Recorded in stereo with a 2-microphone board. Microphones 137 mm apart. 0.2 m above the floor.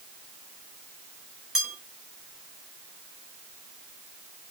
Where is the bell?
5° right (ahead or behind), 1.7 m.